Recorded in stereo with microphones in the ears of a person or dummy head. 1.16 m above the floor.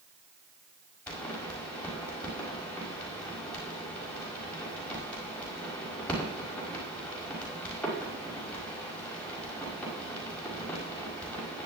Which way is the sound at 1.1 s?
5° left (ahead or behind).